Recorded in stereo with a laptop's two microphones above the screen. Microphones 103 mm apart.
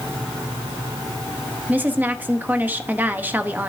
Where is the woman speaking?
15° right (ahead or behind), 0.8 m.